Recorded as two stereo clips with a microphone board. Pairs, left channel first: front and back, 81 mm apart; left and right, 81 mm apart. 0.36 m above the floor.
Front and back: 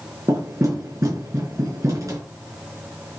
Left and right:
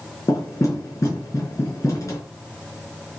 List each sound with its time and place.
0.3 s knocking: 140° left, 4.5 m